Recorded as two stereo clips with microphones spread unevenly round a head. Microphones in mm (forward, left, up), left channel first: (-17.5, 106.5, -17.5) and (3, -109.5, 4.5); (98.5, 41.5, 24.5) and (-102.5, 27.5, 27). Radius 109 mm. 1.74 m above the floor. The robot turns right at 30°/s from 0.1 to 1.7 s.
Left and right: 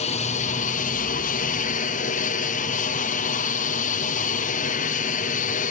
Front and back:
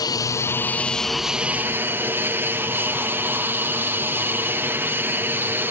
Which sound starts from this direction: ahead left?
An aircraft, at 0.0 s.